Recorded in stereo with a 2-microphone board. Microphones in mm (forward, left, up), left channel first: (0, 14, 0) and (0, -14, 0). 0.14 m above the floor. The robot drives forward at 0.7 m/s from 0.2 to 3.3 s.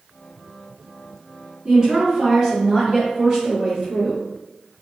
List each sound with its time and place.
1.6 s a woman speaking: 25° right (ahead or behind), 1.9 m; by 4.2 s 20° right (ahead or behind), 2.5 m